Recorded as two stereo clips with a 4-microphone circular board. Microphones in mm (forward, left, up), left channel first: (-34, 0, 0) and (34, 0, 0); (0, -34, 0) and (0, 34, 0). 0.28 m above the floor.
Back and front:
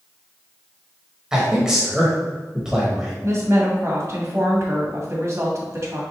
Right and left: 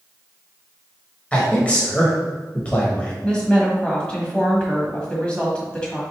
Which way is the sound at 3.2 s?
20° right.